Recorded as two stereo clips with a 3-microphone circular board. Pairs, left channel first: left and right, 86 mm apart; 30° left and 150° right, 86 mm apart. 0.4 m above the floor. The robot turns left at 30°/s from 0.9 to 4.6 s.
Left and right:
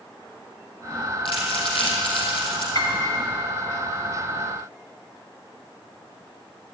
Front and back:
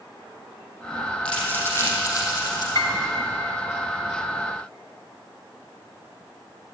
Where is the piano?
60° left, 2.5 m; by 3.0 s 50° left, 2.5 m.